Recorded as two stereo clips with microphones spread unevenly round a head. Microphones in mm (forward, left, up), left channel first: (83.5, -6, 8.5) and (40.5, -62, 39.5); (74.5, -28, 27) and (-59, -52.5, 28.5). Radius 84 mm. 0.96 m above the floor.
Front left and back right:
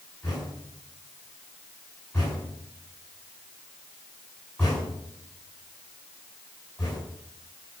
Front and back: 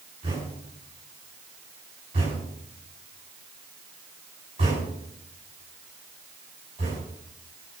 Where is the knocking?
135° left, 8 m.